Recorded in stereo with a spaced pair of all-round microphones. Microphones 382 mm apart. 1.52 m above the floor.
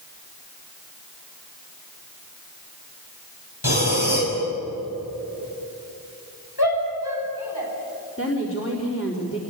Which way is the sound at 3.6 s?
80° left.